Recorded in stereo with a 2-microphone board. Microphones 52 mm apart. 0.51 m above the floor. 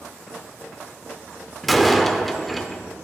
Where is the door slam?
5° left (ahead or behind), 0.6 m.